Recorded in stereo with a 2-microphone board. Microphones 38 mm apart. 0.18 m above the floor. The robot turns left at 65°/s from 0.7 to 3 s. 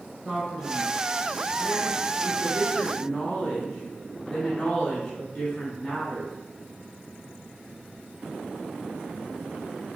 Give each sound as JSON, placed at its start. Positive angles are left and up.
{"t": 0.2, "sound": "a man speaking", "side_deg": 5, "distance_m": 1.2}